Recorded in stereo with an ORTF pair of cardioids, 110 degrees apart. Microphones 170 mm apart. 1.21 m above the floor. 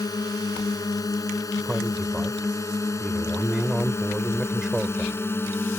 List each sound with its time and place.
0.0 s a drone: 20° left; by 5.8 s 15° left
1.6 s a man speaking: 5° right